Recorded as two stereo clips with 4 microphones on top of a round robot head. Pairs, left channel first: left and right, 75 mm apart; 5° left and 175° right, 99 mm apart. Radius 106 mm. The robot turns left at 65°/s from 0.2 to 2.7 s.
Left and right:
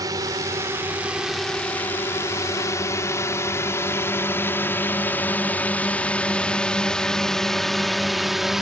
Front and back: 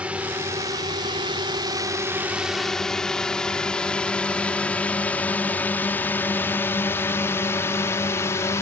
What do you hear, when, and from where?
0.0 s a drone: 100° right; by 8.6 s 10° right